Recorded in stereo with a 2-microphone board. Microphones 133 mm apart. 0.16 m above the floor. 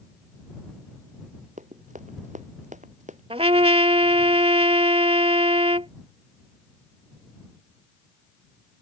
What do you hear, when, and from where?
1.6 s running footsteps: 70° right (ahead or behind); by 3.2 s 65° right (ahead or behind)
3.3 s a trumpet: 50° right (ahead or behind)